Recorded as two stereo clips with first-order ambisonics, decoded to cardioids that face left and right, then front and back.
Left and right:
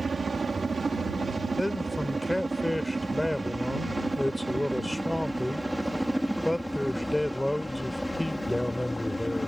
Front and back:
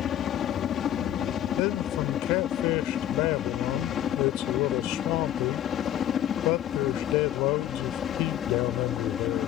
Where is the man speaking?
5° left.